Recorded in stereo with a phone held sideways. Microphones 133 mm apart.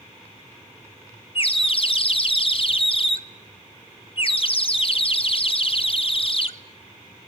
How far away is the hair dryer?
I don't hear a hair dryer.